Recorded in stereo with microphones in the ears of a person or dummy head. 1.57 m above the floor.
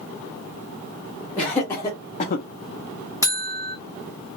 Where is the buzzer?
15° left (ahead or behind), 0.8 m.